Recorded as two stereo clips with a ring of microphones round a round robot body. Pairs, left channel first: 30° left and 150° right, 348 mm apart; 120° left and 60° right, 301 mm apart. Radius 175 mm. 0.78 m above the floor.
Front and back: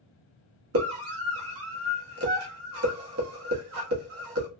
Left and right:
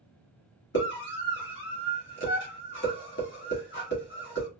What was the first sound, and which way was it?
A scream, 170° left.